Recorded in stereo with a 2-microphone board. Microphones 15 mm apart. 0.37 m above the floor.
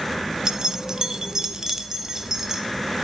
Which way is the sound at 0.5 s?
40° right (ahead or behind).